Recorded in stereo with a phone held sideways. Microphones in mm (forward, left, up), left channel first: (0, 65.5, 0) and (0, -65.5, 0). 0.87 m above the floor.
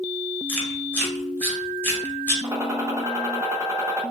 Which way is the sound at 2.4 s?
20° right (ahead or behind).